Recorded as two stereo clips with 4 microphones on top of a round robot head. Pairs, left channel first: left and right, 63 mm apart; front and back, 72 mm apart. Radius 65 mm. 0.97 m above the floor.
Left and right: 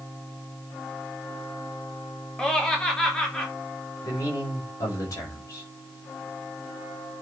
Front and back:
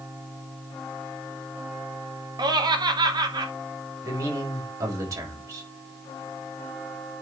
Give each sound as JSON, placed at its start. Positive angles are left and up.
{"t": 2.4, "sound": "laughter", "azimuth_deg": 170, "distance_m": 2.0}
{"t": 4.0, "sound": "a man speaking", "azimuth_deg": 145, "distance_m": 4.5}